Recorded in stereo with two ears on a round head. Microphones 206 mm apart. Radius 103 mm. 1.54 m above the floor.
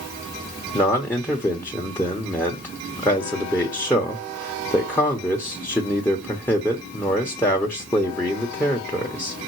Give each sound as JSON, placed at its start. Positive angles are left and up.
{"t": 0.7, "sound": "a man speaking", "side_deg": 10, "distance_m": 1.2}